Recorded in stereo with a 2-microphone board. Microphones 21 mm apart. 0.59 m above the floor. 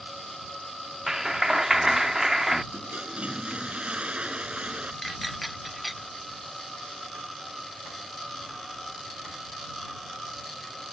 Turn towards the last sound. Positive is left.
turn(degrees=0)  # may be behind; listen again after turning